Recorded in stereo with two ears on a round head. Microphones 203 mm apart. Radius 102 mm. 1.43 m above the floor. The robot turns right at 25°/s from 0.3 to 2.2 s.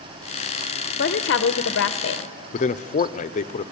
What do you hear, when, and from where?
1.0 s a woman speaking: 55° left, 0.6 m; by 2.3 s 85° left, 0.6 m
2.5 s a man speaking: 35° left (ahead or behind), 0.6 m